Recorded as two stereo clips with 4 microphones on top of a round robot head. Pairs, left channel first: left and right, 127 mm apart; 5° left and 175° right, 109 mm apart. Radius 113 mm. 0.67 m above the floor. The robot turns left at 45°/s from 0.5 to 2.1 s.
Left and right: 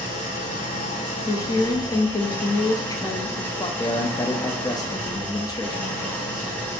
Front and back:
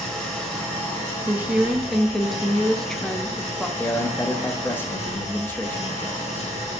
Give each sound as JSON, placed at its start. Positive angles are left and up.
{"t": 0.0, "sound": "an engine running", "azimuth_deg": 85, "distance_m": 1.7}
{"t": 1.3, "sound": "a woman speaking", "azimuth_deg": 125, "distance_m": 0.5}
{"t": 3.8, "sound": "a man speaking", "azimuth_deg": 65, "distance_m": 0.5}